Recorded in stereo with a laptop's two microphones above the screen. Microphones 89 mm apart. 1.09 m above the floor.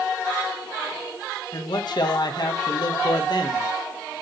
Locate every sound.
1.5 s a man speaking: 60° left (ahead or behind), 1.0 m